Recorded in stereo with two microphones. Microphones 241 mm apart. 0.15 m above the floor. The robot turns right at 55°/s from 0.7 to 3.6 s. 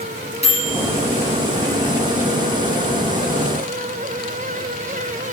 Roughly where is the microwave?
Left.